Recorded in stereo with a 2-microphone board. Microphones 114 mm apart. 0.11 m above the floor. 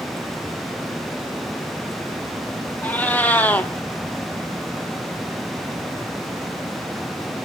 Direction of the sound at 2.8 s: 15° left (ahead or behind).